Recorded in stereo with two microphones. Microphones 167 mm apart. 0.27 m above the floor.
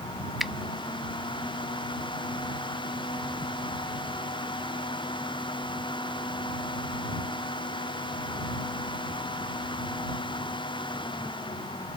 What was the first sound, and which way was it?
A finger snap, centre (ahead or behind).